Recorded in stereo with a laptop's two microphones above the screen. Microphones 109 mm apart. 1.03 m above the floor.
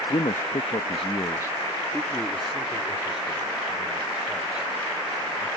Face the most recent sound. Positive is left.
turn(degrees=-10)  # may be behind; listen again after turning